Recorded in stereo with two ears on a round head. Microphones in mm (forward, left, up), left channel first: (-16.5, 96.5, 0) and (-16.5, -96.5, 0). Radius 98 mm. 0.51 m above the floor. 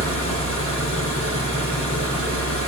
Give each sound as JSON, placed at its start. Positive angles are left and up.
{"t": 0.0, "sound": "an engine running", "side_deg": 70, "distance_m": 6.5}